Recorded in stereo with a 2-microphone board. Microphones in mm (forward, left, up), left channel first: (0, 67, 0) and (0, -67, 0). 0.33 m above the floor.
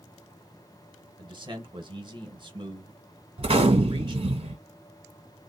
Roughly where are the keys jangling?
I don't hear keys jangling.